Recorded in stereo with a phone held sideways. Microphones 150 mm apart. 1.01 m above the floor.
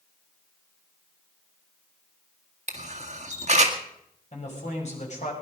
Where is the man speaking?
50° left (ahead or behind), 6 m.